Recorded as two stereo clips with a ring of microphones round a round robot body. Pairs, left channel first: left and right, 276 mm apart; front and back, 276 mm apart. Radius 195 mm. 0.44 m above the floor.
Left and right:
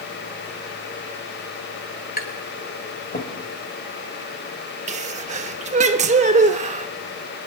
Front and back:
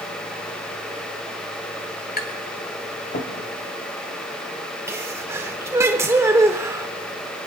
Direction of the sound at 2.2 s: 45° left.